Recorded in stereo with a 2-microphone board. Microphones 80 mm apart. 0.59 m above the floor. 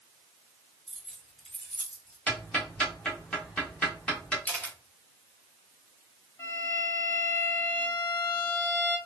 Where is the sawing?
I don't hear sawing.